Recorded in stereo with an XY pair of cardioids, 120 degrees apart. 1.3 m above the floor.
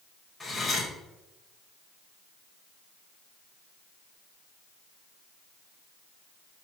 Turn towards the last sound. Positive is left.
turn(degrees=20)